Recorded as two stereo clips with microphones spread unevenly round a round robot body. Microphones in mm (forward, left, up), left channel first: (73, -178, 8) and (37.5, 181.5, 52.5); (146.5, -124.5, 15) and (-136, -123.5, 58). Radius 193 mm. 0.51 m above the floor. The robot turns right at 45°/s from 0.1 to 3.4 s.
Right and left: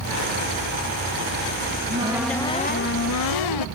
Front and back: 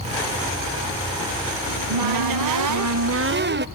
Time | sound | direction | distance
1.7 | a cupboard door | 160° left | 0.8 m